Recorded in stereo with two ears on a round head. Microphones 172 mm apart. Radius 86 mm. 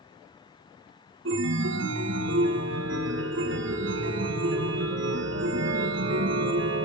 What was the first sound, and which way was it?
A chime, 70° right (ahead or behind).